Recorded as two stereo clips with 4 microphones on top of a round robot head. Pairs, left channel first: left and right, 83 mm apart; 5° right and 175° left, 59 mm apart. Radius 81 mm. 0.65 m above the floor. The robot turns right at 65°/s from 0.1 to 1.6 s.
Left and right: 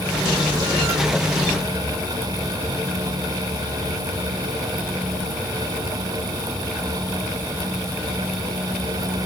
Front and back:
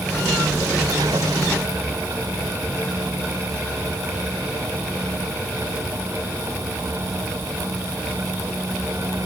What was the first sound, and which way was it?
Only background noise.